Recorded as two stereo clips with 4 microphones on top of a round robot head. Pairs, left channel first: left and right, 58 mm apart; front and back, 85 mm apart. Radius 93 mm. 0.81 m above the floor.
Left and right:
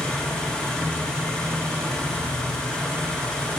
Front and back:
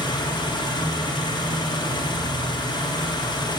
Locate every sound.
0.0 s an engine running: 15° left, 1.0 m